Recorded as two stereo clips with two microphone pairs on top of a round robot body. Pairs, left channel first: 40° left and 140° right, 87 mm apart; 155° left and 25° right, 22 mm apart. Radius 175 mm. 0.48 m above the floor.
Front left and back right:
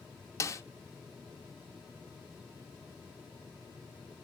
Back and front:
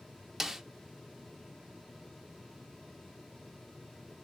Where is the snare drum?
55° left, 0.8 m.